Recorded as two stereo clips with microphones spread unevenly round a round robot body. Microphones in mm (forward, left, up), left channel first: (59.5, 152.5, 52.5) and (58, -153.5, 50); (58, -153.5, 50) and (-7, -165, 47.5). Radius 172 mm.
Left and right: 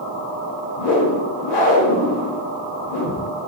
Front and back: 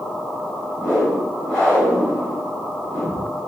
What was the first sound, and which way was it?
A whoosh, 95° left.